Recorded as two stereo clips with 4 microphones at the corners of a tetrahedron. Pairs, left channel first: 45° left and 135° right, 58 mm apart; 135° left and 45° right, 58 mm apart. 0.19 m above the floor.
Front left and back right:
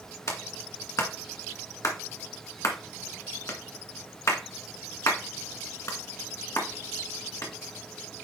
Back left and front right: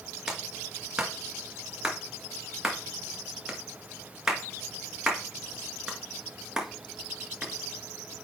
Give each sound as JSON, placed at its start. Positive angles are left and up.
{"t": 0.3, "sound": "a clap", "azimuth_deg": 30, "distance_m": 1.6}